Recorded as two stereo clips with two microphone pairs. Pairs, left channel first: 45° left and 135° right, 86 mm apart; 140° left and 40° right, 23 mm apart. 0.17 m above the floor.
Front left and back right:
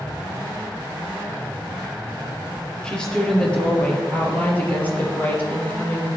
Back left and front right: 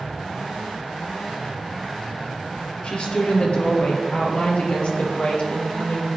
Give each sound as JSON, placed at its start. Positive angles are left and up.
{"t": 2.8, "sound": "a woman speaking", "azimuth_deg": 125, "distance_m": 3.0}